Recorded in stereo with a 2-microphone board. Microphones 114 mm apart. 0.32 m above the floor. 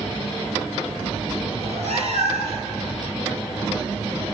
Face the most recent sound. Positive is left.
turn(degrees=-65)  # may be behind; listen again after turning